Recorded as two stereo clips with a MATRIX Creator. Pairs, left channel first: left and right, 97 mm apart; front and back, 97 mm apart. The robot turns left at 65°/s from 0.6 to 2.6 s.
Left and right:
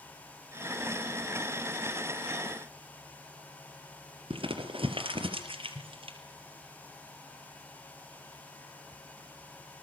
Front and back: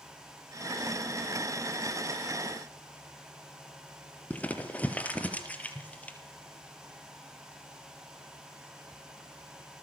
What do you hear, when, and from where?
4.3 s crumpling: 75° right, 4 m